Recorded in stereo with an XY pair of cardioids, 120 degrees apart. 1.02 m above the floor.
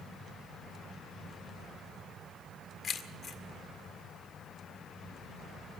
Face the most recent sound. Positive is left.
turn(degrees=45)